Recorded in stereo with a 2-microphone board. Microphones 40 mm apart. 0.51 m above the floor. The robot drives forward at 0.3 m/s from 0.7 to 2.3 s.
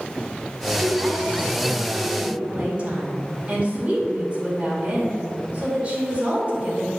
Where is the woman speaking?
35° right (ahead or behind), 1.6 m; by 6.9 s 30° right (ahead or behind), 1.9 m.